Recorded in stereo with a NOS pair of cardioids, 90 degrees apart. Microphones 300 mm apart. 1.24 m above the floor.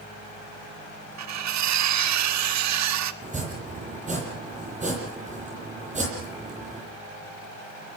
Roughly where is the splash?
No splash in this recording.